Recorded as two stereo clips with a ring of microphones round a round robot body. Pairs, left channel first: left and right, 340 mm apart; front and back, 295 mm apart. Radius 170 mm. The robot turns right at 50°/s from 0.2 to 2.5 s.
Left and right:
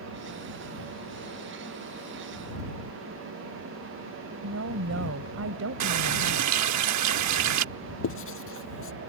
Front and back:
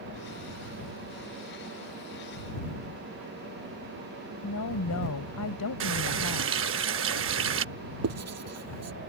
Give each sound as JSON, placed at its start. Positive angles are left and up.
{"t": 4.4, "sound": "a woman speaking", "azimuth_deg": -40}
{"t": 5.8, "sound": "a running tap", "azimuth_deg": -130}
{"t": 8.0, "sound": "writing", "azimuth_deg": 145}